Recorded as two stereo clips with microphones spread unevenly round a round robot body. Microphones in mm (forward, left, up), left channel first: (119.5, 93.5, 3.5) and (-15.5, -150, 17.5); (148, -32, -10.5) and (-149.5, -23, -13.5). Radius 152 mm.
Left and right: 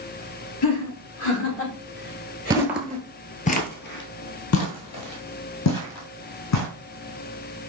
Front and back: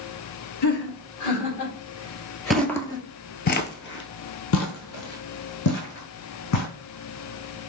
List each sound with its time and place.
0.6 s laughter: 40° left, 3 m; by 3.0 s 10° right, 2 m
2.5 s footsteps: 90° right, 0.7 m; by 6.7 s 35° left, 2 m